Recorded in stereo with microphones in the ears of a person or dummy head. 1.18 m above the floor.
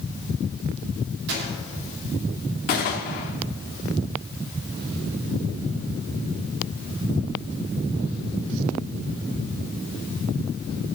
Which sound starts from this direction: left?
A gunshot, at 2.7 s.